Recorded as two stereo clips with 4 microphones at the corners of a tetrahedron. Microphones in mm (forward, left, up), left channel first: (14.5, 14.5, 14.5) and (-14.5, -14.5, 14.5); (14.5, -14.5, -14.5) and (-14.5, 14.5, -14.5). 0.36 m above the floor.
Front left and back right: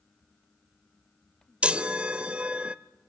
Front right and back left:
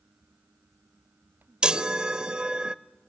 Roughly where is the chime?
Behind.